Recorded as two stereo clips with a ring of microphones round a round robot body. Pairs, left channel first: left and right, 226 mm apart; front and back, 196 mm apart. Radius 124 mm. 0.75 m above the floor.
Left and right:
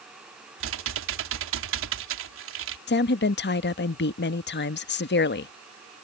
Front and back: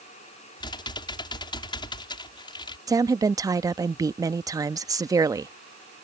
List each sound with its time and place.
0.6 s typing on a keyboard: 70° right
2.9 s a woman speaking: 110° left